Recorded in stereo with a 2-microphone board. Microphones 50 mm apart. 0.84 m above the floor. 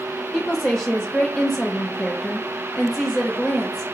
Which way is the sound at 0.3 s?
15° left (ahead or behind).